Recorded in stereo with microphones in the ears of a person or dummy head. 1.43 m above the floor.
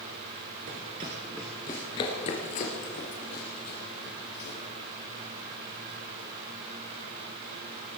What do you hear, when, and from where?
0.7 s running footsteps: 30° right (ahead or behind), 1.6 m; by 4.6 s 60° left (ahead or behind), 4.5 m